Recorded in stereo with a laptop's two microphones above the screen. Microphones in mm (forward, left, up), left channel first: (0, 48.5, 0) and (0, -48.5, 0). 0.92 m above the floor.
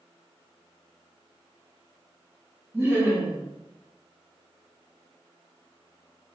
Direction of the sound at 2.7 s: 20° right (ahead or behind).